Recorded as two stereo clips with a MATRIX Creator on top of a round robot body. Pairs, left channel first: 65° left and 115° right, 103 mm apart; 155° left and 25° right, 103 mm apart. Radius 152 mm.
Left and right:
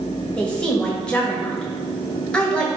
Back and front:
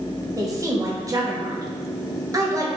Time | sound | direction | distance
0.4 | a woman speaking | 5° right | 1.3 m